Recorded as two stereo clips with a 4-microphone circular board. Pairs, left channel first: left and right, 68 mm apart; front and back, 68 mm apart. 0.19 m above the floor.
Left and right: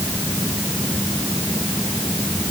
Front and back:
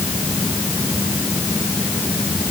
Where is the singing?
No singing in this recording.